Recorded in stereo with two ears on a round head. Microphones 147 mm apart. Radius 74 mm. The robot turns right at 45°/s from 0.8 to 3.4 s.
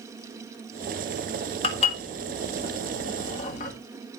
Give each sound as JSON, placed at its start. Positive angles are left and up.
{"t": 1.6, "sound": "dishes clattering", "side_deg": 35, "distance_m": 1.6}